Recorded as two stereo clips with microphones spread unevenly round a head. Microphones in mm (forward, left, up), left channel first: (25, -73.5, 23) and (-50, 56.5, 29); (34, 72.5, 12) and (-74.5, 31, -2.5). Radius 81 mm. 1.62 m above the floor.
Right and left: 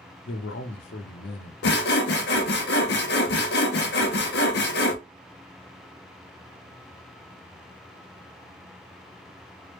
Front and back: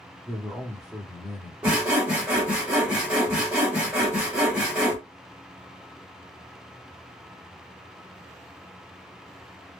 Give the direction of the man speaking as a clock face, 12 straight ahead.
2 o'clock.